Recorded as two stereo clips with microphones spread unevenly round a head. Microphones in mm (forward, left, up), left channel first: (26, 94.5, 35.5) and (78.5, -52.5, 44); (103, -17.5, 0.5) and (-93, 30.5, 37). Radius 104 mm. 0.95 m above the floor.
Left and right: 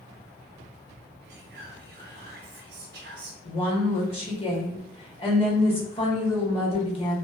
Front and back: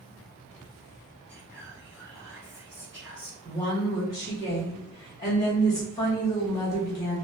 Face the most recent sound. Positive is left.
turn(degrees=55)